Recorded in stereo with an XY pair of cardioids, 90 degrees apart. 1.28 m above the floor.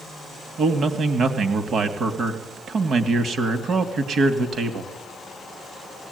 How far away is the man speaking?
About 2.5 m.